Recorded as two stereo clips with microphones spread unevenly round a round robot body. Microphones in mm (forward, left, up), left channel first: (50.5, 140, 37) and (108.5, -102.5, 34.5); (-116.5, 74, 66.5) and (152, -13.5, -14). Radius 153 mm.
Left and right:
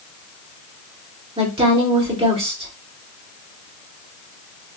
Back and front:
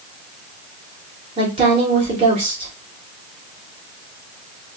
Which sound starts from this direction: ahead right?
A woman speaking, at 1.4 s.